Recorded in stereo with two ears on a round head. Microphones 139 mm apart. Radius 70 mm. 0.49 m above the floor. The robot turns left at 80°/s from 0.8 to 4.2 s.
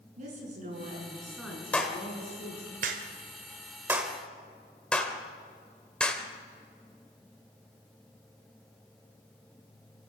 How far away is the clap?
About 2.0 m.